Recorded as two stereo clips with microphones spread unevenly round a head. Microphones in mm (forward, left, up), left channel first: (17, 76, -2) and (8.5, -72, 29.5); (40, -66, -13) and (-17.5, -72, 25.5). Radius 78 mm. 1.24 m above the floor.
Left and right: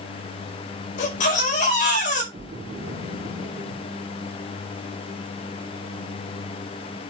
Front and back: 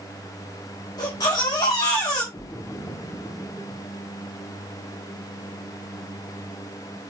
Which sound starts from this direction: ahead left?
A baby crying, at 1.0 s.